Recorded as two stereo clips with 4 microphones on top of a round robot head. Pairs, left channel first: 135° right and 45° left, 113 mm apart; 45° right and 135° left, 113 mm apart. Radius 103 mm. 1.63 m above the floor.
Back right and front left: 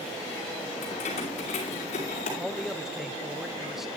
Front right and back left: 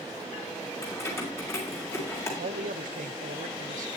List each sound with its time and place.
0.8 s keys jangling: 110° right, 5.5 m
2.4 s a man speaking: 130° left, 1.0 m